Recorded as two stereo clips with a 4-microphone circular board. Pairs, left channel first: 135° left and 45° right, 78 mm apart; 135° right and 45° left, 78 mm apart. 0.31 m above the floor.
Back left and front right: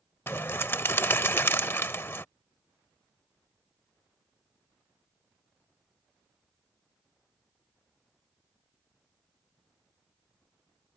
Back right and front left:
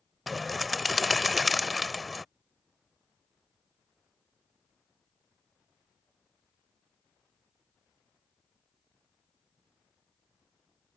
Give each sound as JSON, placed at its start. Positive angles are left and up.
{"t": 0.3, "sound": "a bird", "azimuth_deg": 135}